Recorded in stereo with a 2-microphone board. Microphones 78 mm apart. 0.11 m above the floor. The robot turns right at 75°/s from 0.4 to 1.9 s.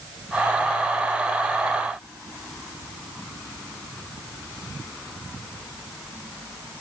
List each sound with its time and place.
Only background noise.